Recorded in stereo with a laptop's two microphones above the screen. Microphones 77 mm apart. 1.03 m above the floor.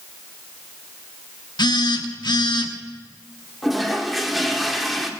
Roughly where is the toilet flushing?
Centre.